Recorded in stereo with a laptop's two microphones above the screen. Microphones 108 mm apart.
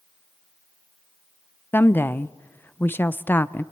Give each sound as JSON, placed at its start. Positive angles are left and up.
{"t": 1.7, "sound": "a woman speaking", "side_deg": 20, "distance_m": 0.6}